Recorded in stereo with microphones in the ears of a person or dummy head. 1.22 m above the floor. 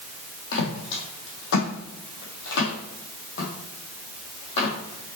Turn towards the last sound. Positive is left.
turn(degrees=35)  # may be behind; listen again after turning